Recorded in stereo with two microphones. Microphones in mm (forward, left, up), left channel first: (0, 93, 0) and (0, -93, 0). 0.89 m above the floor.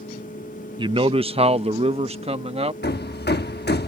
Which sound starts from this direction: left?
Hammering, at 2.8 s.